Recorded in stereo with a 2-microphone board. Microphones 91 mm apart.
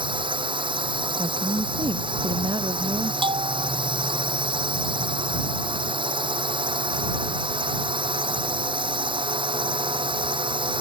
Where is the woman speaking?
65° right (ahead or behind).